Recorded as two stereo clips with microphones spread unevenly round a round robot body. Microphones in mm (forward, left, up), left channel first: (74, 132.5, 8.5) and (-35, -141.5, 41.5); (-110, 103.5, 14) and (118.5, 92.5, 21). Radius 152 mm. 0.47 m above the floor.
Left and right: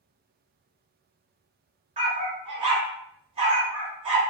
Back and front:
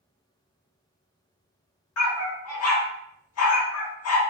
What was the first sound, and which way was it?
A dog barking, 175° left.